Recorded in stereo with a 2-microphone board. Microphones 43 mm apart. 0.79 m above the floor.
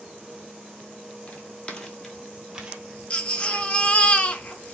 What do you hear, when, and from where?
1.3 s footsteps: 35° left (ahead or behind), 1.3 m; by 4.1 s 60° right (ahead or behind), 1.7 m
3.1 s a baby crying: 30° left (ahead or behind), 0.6 m